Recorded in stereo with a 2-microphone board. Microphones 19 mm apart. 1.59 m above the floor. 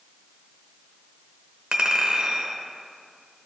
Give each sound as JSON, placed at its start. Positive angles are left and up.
{"t": 1.7, "sound": "a clink", "side_deg": -40, "distance_m": 1.0}